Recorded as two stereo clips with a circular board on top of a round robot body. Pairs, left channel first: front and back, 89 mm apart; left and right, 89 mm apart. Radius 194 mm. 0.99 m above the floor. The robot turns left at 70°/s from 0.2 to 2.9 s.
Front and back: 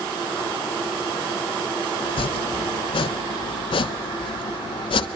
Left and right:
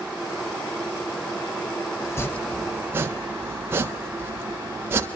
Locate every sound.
2.0 s chopping: 40° left, 1.2 m; by 5.1 s 25° right, 1.2 m